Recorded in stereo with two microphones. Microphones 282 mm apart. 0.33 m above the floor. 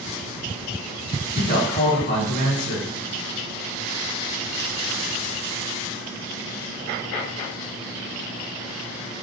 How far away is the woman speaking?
About 2 m.